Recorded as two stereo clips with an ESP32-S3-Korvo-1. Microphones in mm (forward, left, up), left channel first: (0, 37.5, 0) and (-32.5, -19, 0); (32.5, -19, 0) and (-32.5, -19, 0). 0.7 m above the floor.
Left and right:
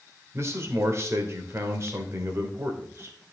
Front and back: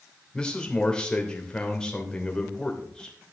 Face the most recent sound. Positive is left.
turn(degrees=-75)